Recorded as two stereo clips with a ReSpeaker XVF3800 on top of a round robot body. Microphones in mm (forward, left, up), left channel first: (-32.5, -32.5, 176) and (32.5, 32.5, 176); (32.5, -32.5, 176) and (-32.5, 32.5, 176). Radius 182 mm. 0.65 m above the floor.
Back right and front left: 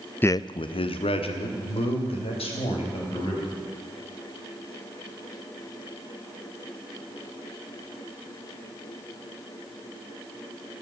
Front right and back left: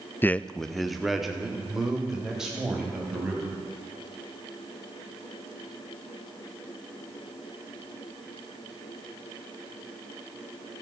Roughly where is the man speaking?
Right.